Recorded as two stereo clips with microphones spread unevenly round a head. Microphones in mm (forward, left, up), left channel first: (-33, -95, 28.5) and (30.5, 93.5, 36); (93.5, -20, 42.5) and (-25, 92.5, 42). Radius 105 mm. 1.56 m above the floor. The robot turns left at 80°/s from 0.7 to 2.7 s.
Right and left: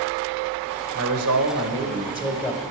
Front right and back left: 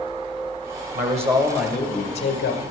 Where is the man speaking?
105° left, 1.1 m; by 2.6 s 30° right, 1.1 m.